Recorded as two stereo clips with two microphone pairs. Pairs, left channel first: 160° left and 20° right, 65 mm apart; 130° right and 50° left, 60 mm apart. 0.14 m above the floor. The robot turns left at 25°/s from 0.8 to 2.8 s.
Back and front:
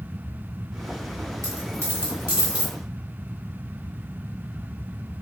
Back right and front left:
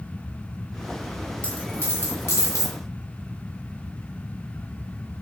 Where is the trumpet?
I don't hear a trumpet.